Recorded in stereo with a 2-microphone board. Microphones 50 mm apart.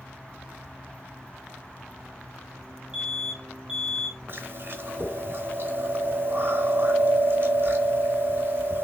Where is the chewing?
50° right (ahead or behind), 0.8 m.